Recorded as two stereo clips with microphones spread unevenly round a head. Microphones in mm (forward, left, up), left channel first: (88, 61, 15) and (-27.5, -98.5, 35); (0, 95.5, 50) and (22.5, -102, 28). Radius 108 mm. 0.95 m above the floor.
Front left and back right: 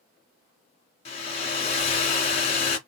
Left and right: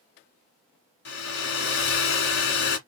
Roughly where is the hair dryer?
Behind left.